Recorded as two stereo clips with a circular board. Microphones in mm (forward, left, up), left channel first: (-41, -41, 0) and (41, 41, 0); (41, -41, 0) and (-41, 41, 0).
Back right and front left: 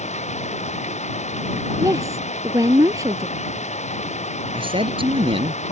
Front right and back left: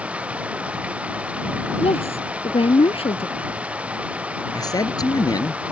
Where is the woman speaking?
15° right.